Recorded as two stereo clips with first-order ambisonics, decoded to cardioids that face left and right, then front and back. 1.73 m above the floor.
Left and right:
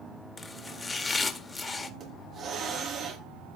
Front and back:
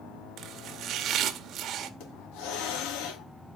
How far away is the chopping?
About 1.7 m.